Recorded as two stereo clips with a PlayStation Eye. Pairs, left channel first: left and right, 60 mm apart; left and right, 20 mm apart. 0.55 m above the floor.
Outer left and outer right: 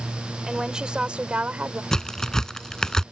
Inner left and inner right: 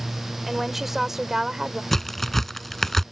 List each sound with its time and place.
0.5 s a woman speaking: 10° right (ahead or behind); by 1.8 s 25° right (ahead or behind)
1.9 s a crack: 10° left (ahead or behind)